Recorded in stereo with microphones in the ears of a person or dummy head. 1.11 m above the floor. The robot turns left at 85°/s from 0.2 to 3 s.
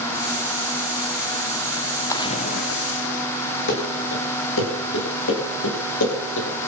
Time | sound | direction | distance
2.1 | a splash | 160° left | 1.1 m
3.7 | running footsteps | 65° left (ahead or behind) | 5 m